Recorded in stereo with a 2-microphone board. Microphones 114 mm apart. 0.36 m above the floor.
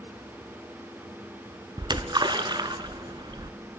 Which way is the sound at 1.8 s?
40° right (ahead or behind).